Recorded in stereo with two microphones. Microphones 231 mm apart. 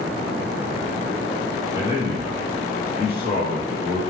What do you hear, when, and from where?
1.7 s a man speaking: 25° left (ahead or behind), 2.0 m